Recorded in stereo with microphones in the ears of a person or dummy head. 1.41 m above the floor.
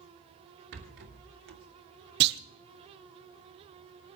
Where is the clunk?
65° right (ahead or behind), 1.0 m.